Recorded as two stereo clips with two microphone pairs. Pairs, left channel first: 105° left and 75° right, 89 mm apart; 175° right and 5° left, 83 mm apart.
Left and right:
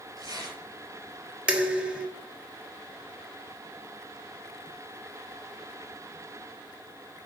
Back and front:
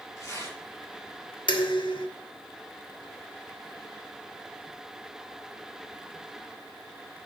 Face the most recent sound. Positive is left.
turn(degrees=-155)